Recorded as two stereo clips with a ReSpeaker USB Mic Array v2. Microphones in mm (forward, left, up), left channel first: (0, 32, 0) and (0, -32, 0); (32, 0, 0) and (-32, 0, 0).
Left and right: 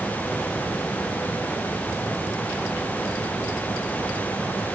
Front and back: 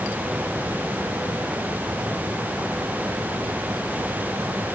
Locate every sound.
Only background noise.